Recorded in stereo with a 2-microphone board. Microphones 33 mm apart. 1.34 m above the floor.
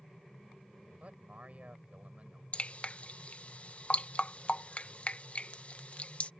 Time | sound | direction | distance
1.0 | a man speaking | 50° right (ahead or behind) | ?
2.5 | dripping | 40° left (ahead or behind) | ?